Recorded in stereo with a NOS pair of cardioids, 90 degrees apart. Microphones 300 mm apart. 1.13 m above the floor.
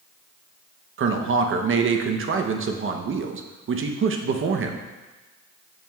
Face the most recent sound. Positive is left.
turn(degrees=-45)